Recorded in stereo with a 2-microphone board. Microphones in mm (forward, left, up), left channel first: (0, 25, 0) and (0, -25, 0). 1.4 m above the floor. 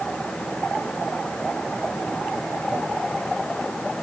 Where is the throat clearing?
I don't hear throat clearing.